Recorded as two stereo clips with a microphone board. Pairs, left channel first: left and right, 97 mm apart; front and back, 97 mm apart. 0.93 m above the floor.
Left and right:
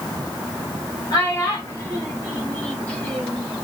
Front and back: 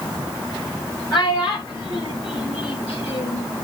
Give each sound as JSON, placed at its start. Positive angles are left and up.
{"t": 1.1, "sound": "a child speaking", "azimuth_deg": 35, "distance_m": 3.5}